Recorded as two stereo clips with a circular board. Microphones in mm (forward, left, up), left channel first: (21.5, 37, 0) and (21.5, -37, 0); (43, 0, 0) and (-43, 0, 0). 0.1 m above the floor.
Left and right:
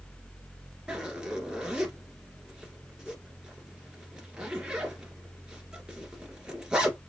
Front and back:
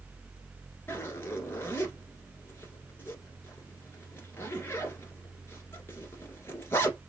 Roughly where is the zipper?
Ahead right.